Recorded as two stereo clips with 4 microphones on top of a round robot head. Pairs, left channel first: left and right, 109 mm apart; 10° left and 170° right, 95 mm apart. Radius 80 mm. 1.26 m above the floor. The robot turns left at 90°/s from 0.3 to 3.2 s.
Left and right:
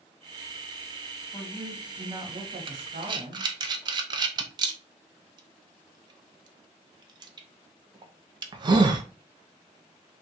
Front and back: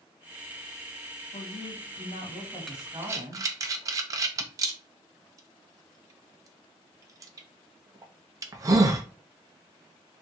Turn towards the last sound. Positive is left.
turn(degrees=-125)